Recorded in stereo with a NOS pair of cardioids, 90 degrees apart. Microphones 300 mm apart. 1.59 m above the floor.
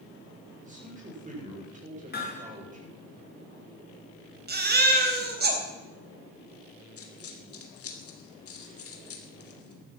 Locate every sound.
0.6 s a man speaking: 25° right, 8 m
2.1 s hammering: 35° left, 5.5 m
4.5 s a baby crying: 35° right, 4 m
7.0 s a dropped coin: 50° left, 3 m